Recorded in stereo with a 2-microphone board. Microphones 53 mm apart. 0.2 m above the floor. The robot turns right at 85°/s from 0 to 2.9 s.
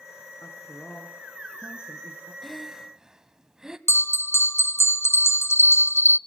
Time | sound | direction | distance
0.4 | a man speaking | 115° left | 2.5 m
2.4 | breathing | 5° left (ahead or behind) | 1.4 m
3.9 | a bell | 55° left (ahead or behind) | 0.5 m